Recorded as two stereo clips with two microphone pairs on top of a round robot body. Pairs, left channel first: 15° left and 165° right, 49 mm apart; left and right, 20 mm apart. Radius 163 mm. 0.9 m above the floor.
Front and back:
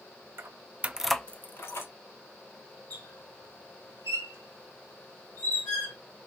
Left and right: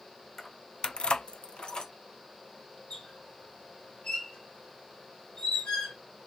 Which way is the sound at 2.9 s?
65° left.